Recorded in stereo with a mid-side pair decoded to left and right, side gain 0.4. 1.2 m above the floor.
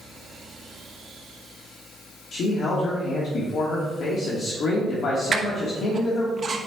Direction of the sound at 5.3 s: 40° right.